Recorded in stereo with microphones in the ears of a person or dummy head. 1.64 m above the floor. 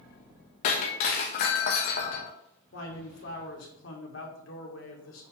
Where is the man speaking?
80° left, 2.5 m.